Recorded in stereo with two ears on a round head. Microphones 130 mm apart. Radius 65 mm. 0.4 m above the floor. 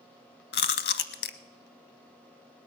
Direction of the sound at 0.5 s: 85° left.